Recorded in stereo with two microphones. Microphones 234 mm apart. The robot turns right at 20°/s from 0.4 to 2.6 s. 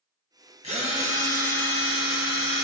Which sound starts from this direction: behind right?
A drill, at 0.6 s.